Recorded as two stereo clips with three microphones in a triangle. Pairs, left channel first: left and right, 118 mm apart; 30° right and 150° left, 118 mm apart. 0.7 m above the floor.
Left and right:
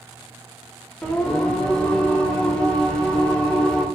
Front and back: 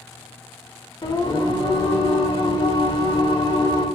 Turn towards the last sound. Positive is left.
turn(degrees=10)